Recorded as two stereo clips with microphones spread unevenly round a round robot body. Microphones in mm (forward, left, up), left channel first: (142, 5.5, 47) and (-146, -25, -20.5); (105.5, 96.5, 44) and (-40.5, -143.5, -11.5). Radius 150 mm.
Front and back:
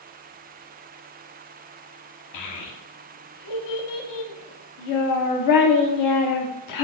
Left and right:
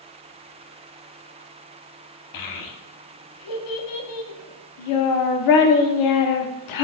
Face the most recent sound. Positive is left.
turn(degrees=40)